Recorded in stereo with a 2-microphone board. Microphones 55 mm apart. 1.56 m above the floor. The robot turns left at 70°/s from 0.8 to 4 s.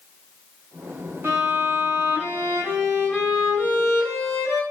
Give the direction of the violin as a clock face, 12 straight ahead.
2 o'clock.